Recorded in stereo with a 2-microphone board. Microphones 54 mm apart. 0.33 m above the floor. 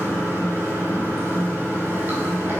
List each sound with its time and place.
0.0 s running water: 40° right (ahead or behind), 1.4 m